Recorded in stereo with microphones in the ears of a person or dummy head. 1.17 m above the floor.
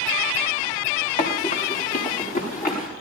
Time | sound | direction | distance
1.2 | running footsteps | 50° left (ahead or behind) | 4.5 m